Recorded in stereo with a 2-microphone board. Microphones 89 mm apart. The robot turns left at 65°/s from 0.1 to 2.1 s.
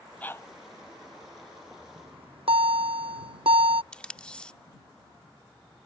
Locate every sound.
0.2 s a dog barking: 15° left (ahead or behind); by 0.5 s 35° left (ahead or behind)
2.0 s a bell: 85° right; by 3.8 s 75° right (ahead or behind)
3.9 s tape being pulled: 10° left (ahead or behind)